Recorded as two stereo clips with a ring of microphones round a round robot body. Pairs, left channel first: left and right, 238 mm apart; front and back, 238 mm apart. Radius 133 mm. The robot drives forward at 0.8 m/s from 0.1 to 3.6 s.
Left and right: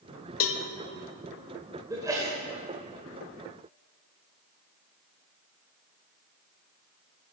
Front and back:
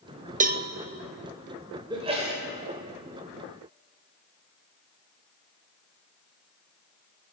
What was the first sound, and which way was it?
A cowbell, 120° left.